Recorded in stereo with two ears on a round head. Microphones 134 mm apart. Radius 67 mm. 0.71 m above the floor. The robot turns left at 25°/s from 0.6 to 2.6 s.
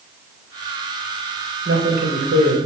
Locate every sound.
1.6 s a man speaking: 70° right (ahead or behind), 3 m; by 2.6 s 65° right (ahead or behind), 3 m